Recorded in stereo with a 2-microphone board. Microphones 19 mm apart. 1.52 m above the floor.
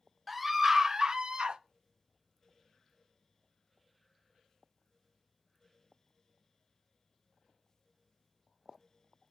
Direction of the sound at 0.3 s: 5° right (ahead or behind).